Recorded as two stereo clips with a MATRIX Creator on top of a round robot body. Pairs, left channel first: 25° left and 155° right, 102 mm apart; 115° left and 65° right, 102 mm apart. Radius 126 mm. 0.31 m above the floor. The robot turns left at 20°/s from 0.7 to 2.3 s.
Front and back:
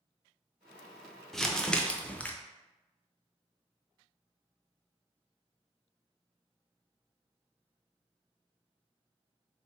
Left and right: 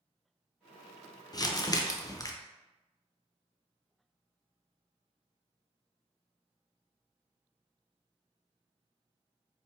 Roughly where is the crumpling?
Left.